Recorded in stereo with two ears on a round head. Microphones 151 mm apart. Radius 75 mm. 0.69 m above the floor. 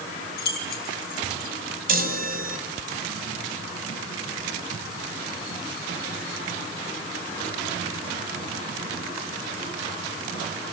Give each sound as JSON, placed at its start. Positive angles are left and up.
{"t": 0.4, "sound": "keys jangling", "side_deg": 65, "distance_m": 2.5}
{"t": 1.9, "sound": "a chime", "side_deg": -60, "distance_m": 2.0}